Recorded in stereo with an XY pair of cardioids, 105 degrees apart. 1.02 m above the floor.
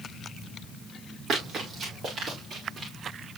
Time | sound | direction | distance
1.3 | running footsteps | 50° right | 6 m